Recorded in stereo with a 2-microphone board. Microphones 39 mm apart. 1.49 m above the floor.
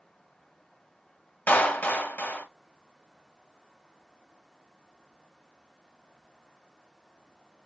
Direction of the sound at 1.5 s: 55° left (ahead or behind).